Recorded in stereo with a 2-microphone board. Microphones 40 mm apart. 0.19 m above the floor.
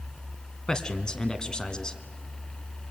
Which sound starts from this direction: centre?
A man speaking, at 0.7 s.